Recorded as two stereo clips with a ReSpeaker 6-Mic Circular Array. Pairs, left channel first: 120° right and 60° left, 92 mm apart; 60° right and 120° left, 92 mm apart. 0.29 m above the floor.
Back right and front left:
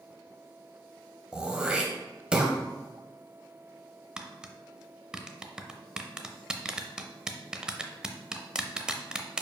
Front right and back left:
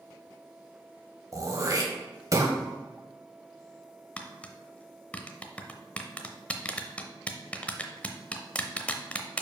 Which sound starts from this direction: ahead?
Tapping, at 4.2 s.